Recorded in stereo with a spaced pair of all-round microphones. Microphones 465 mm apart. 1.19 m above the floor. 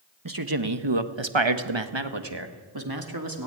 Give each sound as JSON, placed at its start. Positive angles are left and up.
{"t": 0.2, "sound": "a man speaking", "side_deg": -45, "distance_m": 1.4}